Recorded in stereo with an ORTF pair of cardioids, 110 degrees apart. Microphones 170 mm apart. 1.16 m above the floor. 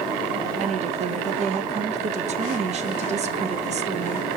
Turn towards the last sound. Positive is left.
turn(degrees=-40)